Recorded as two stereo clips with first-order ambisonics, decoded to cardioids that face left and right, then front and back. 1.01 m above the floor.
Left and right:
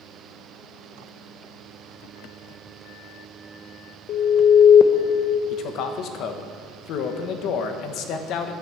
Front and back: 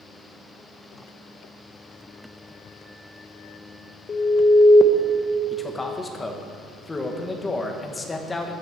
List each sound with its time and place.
4.1 s an alarm: 60° left, 0.7 m
5.5 s a man speaking: 75° left, 1.0 m